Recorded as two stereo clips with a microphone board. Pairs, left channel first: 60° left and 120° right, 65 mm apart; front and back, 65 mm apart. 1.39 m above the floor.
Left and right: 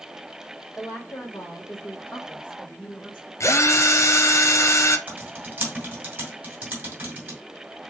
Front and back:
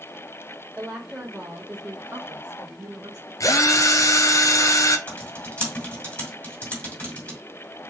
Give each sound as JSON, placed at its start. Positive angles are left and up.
{"t": 0.8, "sound": "a woman speaking", "azimuth_deg": 100, "distance_m": 1.8}
{"t": 3.4, "sound": "a drill", "azimuth_deg": 25, "distance_m": 0.7}
{"t": 5.1, "sound": "typing on a keyboard", "azimuth_deg": -65, "distance_m": 2.5}